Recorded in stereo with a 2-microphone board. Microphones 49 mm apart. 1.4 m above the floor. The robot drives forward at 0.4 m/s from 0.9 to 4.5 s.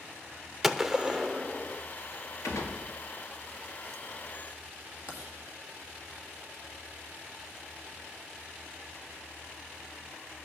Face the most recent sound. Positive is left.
turn(degrees=80)